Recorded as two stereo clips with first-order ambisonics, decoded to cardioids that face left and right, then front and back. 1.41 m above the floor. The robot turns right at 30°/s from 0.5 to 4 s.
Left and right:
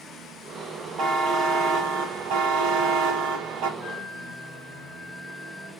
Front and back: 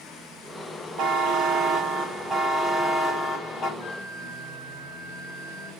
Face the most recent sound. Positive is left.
turn(degrees=-10)